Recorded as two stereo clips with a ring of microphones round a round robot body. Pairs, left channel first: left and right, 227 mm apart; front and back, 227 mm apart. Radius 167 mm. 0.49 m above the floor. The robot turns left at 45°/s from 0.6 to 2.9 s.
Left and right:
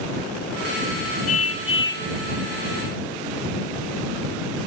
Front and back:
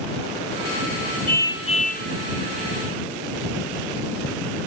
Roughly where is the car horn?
Left.